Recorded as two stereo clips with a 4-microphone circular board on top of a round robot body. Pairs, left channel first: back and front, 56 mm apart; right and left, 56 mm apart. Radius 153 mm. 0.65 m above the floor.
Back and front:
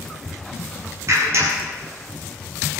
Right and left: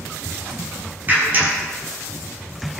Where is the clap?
35° left, 6.5 m.